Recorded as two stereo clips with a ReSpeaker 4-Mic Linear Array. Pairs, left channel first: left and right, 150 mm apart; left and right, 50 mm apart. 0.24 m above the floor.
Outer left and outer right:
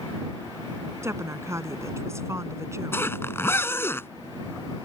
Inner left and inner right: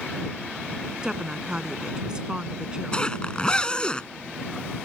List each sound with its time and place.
1.0 s a woman speaking: 20° right (ahead or behind)
2.9 s a zipper: 20° left (ahead or behind)